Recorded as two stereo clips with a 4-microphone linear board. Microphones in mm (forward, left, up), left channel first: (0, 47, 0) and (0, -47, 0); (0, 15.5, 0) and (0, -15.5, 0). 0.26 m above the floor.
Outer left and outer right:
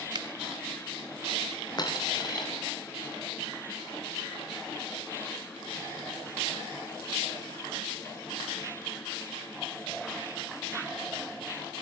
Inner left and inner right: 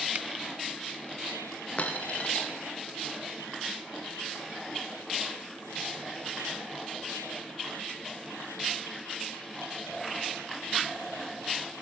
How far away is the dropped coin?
About 6.5 m.